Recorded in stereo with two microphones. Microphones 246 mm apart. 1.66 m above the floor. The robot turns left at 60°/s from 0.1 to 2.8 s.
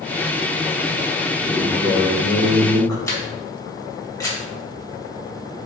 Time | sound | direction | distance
1.4 | a man speaking | 20° right | 2.5 m
3.1 | a camera shutter | 10° left (ahead or behind) | 2.5 m